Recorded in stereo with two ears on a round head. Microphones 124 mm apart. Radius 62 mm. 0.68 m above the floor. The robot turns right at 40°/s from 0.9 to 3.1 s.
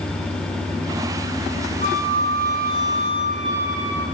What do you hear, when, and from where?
1.8 s a flute: 105° right, 1.4 m; by 4.0 s 55° right, 1.4 m